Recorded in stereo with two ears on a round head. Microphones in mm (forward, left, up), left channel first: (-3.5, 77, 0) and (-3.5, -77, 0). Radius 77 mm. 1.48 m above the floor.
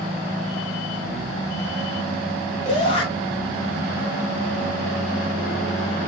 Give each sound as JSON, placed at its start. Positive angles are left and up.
{"t": 2.6, "sound": "a shout", "side_deg": 45, "distance_m": 6.5}